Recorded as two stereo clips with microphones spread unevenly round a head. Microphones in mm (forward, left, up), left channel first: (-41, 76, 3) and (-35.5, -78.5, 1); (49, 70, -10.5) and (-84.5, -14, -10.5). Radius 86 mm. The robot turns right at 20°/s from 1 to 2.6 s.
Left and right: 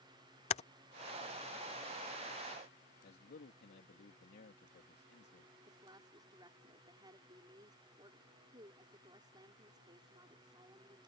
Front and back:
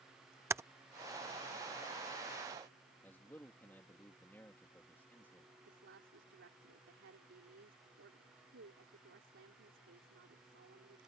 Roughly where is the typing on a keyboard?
Behind left.